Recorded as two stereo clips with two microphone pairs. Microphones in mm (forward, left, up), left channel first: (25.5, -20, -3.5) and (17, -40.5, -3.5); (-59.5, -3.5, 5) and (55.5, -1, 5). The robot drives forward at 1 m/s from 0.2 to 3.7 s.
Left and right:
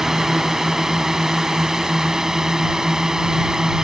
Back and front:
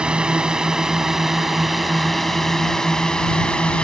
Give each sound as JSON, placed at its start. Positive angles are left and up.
{"t": 0.0, "sound": "a drone", "azimuth_deg": -70}